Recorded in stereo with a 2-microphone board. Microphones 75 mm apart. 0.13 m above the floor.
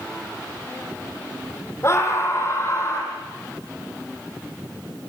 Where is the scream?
40° left (ahead or behind), 5 m; by 3.1 s 35° left (ahead or behind), 6 m.